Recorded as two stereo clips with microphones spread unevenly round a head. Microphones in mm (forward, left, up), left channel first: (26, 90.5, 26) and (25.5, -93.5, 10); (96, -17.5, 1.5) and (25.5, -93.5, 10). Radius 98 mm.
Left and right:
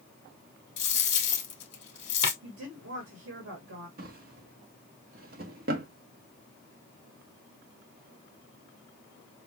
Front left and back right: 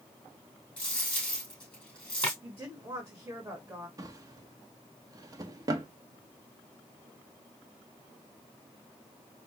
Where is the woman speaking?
65° right, 2 m.